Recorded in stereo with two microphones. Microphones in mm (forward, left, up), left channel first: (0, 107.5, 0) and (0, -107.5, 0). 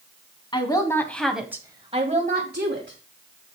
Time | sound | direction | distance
0.5 | a woman speaking | 20° left (ahead or behind) | 1.9 m